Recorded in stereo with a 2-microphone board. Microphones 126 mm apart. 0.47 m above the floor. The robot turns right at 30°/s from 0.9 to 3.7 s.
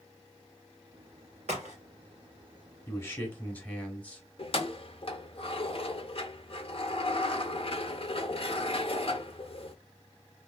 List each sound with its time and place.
1.5 s a crack: 75° right (ahead or behind), 1.7 m; by 1.8 s 85° right, 1.7 m
2.9 s a man speaking: 20° left (ahead or behind), 1.2 m; by 4.2 s 10° left (ahead or behind), 1.2 m
4.4 s keys jangling: 50° left (ahead or behind), 0.6 m